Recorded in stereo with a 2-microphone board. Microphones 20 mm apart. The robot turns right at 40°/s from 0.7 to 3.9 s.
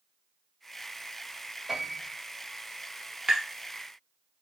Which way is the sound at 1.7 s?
25° right (ahead or behind).